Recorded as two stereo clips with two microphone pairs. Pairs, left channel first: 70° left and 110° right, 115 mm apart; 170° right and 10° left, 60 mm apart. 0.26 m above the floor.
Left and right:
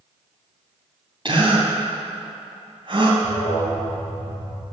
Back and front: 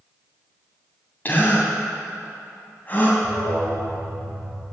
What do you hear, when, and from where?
1.2 s a gasp: 125° right, 2.5 m
3.2 s an alarm: 10° left, 4.5 m